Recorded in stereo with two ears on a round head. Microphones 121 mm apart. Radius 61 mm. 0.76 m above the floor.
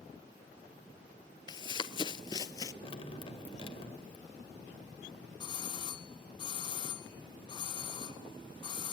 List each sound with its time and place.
1.5 s running footsteps: 30° left (ahead or behind), 0.9 m; by 2.7 s 25° left (ahead or behind), 1.0 m
2.8 s dripping: 40° left (ahead or behind), 1.9 m
5.4 s a doorbell: 35° left (ahead or behind), 1.5 m